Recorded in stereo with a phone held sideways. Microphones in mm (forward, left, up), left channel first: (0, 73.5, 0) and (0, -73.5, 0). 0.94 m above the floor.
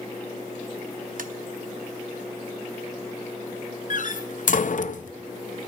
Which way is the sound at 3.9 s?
60° left (ahead or behind).